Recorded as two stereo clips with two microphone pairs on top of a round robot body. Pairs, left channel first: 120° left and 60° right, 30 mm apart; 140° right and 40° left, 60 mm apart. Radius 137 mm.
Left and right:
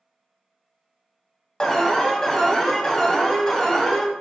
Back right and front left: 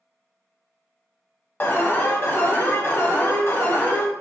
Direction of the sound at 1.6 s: Straight behind.